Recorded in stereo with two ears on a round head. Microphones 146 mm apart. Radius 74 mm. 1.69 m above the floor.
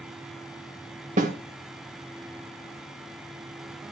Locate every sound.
1.2 s a snare drum: 45° right (ahead or behind), 2 m